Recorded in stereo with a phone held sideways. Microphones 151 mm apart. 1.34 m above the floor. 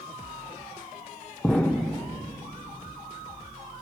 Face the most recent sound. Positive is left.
turn(degrees=10)  # may be behind; listen again after turning